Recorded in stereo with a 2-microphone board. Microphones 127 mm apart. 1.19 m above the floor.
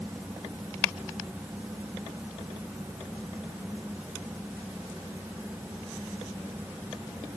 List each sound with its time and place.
Only background noise.